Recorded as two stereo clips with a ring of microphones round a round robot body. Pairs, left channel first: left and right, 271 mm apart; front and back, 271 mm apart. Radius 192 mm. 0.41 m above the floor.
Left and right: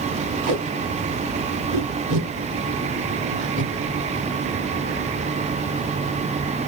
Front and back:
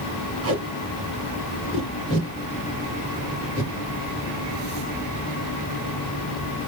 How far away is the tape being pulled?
About 3 m.